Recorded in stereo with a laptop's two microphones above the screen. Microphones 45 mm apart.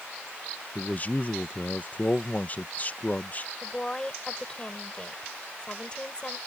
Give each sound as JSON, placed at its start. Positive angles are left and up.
{"t": 0.8, "sound": "a man speaking", "side_deg": 40}
{"t": 3.6, "sound": "a woman speaking", "side_deg": 20}